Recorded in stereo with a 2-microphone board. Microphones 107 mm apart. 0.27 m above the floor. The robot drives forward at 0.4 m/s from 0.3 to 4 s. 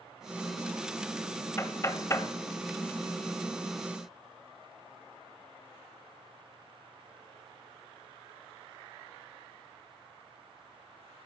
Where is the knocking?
25° left (ahead or behind), 0.9 m.